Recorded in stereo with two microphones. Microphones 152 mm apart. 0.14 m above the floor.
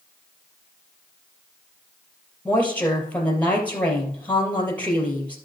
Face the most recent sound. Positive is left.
turn(degrees=10)  # may be behind; listen again after turning